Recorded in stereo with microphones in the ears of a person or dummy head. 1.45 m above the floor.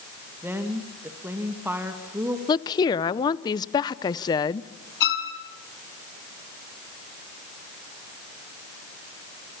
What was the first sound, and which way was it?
A woman speaking, 10° right (ahead or behind).